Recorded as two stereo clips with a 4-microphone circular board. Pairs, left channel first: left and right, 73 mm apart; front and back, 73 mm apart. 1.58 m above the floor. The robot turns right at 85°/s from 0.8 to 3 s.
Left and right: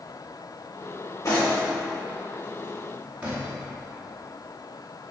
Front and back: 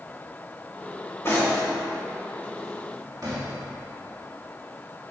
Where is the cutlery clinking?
55° left, 1.9 m; by 3.5 s 155° right, 1.9 m.